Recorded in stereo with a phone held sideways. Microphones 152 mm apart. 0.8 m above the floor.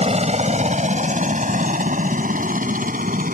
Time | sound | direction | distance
0.0 | a helicopter | 45° right (ahead or behind) | ?